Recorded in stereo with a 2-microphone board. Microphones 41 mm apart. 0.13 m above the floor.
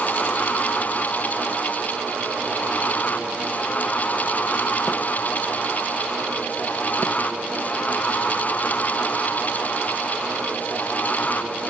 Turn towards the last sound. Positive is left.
No sound to turn to.